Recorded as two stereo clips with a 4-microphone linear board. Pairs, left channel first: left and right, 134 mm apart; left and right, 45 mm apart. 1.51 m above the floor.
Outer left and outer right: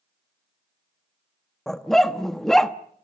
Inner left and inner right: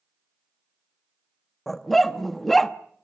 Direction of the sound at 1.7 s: 5° left (ahead or behind).